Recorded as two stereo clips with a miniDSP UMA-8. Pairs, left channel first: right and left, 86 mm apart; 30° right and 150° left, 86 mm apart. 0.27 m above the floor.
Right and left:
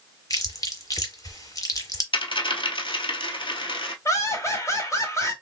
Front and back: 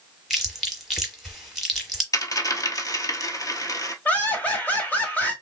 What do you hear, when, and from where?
0.3 s chewing: 120° right, 1.1 m
2.1 s a dropped coin: 75° right, 0.8 m
4.0 s laughter: 85° right, 1.3 m